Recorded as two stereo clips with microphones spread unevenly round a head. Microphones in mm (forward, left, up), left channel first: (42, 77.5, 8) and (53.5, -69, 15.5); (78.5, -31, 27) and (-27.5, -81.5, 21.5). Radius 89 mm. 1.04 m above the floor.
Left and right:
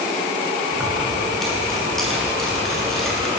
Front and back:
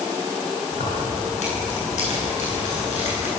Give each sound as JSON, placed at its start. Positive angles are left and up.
{"t": 0.7, "sound": "keys jangling", "azimuth_deg": 5, "distance_m": 10.0}